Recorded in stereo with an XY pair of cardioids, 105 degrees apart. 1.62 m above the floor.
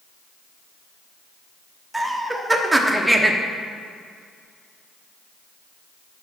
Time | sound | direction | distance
1.9 | laughter | 10° right | 1.0 m